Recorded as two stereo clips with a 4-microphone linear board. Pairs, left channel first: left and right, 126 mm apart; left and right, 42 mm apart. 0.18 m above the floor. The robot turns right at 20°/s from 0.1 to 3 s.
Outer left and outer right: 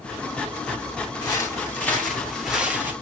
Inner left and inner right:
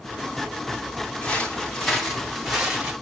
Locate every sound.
1.2 s footsteps: 30° left (ahead or behind), 6.5 m; by 2.9 s 15° right (ahead or behind), 6.5 m